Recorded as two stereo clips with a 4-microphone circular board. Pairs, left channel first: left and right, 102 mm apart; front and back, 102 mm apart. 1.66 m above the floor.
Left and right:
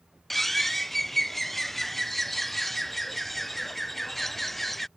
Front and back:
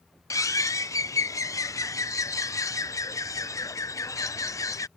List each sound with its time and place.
0.3 s a bird: 5° left